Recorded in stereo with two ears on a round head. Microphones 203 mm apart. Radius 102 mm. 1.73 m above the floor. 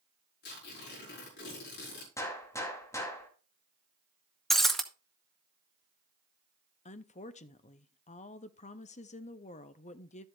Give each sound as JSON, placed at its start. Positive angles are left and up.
{"t": 0.4, "sound": "tearing paper", "side_deg": 50, "distance_m": 5.0}
{"t": 2.2, "sound": "a gunshot", "side_deg": 15, "distance_m": 2.0}
{"t": 4.5, "sound": "breaking glass", "side_deg": 0, "distance_m": 0.8}
{"t": 6.8, "sound": "a woman speaking", "side_deg": 30, "distance_m": 0.7}